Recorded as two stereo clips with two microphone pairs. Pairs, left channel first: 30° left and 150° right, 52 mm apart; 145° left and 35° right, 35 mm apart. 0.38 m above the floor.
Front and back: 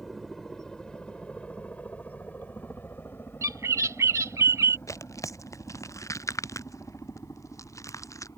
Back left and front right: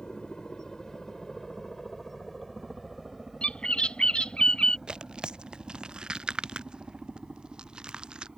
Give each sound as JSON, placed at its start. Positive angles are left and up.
{"t": 0.0, "sound": "a helicopter", "azimuth_deg": 115}
{"t": 3.4, "sound": "a bird", "azimuth_deg": -155}
{"t": 4.9, "sound": "tearing paper", "azimuth_deg": 30}